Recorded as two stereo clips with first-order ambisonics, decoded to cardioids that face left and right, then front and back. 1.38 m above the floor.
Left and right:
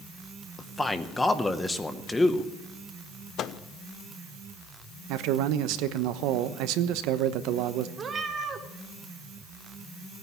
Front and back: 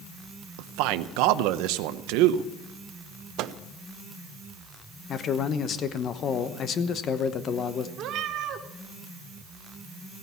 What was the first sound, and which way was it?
A man speaking, 170° left.